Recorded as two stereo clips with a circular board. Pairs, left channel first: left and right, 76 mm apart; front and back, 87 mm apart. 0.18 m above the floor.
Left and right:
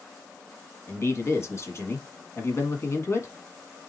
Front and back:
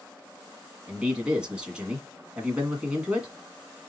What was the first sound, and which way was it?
A man speaking, 110° left.